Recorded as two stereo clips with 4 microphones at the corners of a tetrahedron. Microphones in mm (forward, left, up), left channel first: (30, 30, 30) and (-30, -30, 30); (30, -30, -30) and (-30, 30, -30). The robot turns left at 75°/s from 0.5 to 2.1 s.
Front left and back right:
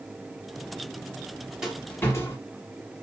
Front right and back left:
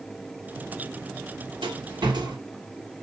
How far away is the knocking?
I don't hear knocking.